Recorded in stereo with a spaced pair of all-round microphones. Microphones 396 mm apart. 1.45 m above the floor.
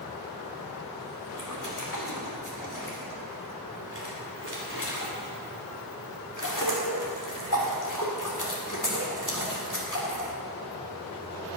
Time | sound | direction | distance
1.3 | a splash | 50° left (ahead or behind) | 2 m